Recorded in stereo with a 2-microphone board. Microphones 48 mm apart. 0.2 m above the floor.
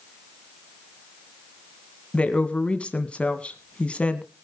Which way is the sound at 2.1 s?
25° left (ahead or behind).